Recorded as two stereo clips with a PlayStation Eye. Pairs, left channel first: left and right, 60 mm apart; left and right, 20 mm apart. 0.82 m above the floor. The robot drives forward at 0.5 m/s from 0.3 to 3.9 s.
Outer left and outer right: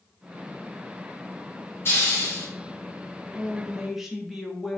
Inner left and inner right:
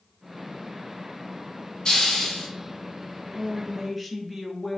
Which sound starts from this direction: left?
A hiss, at 1.9 s.